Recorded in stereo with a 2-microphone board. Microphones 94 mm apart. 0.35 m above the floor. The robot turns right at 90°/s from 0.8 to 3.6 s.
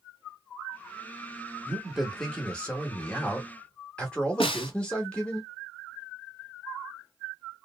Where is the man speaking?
10° right (ahead or behind), 1.0 m; by 5.4 s 10° left (ahead or behind), 1.0 m.